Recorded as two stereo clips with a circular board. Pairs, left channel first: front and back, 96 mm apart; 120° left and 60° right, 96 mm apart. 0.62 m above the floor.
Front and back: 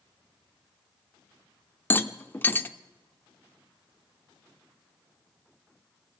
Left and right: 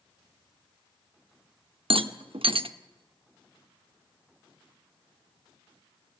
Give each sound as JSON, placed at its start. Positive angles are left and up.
{"t": 1.9, "sound": "a rattle", "azimuth_deg": -65, "distance_m": 0.8}